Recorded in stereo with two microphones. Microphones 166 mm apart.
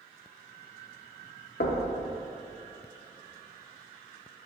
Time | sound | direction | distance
1.6 | knocking | 70° left (ahead or behind) | 0.5 m